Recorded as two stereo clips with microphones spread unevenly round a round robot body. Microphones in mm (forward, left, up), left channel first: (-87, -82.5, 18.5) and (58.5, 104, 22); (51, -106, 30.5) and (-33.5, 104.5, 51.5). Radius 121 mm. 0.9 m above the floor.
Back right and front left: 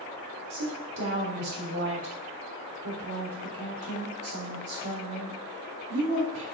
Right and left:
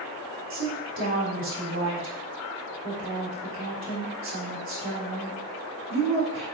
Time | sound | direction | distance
0.5 | a woman speaking | 75° left | 3 m